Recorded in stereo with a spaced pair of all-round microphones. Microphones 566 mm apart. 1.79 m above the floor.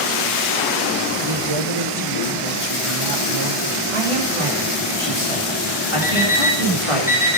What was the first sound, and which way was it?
A man speaking, 50° right (ahead or behind).